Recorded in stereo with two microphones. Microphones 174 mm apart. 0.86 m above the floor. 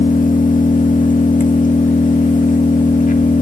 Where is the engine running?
50° left (ahead or behind), 1.6 m.